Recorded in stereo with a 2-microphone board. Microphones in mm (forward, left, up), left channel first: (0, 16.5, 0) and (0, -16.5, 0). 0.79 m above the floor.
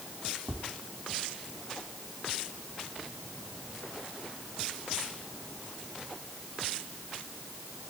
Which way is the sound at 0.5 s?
70° right (ahead or behind).